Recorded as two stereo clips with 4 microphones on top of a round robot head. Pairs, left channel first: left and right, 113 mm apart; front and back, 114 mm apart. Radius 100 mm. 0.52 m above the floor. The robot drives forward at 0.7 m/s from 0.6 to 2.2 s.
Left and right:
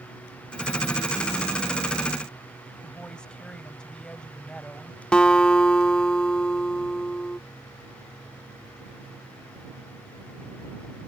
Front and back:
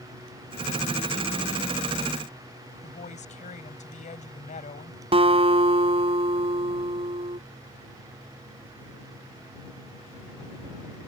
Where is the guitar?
170° left.